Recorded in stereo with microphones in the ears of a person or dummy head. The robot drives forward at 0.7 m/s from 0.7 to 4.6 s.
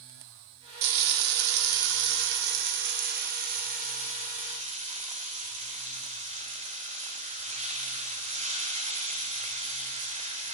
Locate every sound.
0.8 s frying: 65° right (ahead or behind), 1.8 m; by 10.6 s 30° right (ahead or behind), 3 m